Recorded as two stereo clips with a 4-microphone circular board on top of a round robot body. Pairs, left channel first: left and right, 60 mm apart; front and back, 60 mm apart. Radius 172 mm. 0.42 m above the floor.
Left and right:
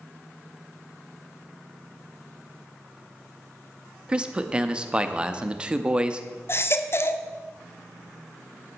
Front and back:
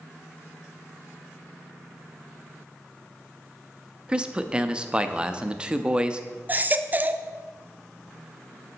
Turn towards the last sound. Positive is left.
turn(degrees=125)